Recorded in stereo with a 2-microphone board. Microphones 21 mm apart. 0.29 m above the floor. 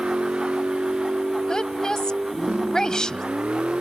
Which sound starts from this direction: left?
A woman speaking, at 1.5 s.